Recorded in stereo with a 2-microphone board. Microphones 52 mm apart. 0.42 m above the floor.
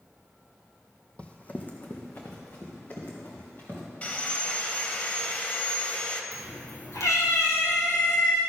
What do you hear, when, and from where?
1.2 s running footsteps: 25° left (ahead or behind), 0.9 m; by 3.9 s 45° left (ahead or behind), 4.5 m
4.0 s sawing: 30° left (ahead or behind), 0.8 m
6.3 s a cat meowing: 85° left, 2 m